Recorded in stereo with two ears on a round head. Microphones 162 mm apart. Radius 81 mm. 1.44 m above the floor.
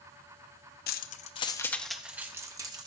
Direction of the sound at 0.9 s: 55° left (ahead or behind).